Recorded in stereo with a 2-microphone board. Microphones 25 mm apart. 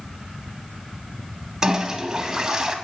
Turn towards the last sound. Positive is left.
turn(degrees=-25)  # may be behind; listen again after turning